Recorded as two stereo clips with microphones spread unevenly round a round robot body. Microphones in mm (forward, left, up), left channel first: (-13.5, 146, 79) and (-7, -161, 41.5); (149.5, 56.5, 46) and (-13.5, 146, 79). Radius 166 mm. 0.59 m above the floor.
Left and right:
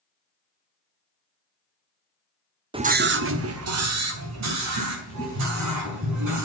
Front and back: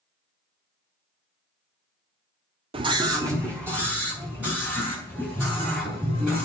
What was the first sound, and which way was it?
A scream, 145° right.